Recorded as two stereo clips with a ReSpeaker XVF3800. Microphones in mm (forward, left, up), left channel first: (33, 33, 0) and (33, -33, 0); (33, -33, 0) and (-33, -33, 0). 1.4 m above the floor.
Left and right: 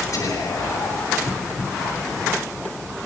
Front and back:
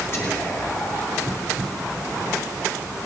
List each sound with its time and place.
0.1 s whispering: 50° left, 8 m